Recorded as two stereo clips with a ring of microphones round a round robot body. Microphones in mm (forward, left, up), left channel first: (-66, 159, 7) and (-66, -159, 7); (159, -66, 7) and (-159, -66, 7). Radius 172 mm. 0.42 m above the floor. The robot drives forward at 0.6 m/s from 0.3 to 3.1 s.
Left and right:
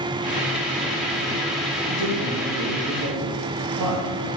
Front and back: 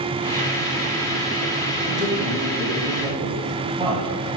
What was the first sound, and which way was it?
A man speaking, 90° right.